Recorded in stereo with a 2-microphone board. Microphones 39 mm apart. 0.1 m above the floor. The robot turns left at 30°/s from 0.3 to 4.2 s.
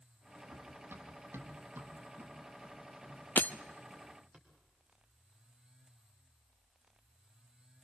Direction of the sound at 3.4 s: 50° left (ahead or behind).